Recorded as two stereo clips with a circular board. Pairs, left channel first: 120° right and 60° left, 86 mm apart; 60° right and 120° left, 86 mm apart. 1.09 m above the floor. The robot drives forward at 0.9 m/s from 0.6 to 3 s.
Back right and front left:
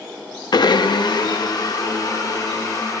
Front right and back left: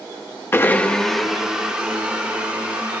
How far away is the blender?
About 0.6 m.